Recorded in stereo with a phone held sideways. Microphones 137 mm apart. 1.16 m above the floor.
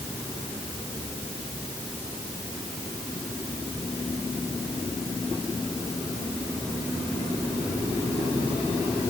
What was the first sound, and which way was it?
Only background noise.